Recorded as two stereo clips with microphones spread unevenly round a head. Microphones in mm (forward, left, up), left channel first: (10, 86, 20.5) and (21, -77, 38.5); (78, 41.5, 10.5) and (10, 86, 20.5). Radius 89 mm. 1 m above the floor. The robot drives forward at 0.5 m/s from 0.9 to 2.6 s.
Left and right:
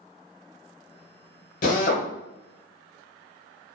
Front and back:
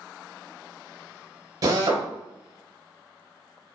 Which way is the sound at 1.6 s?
135° left.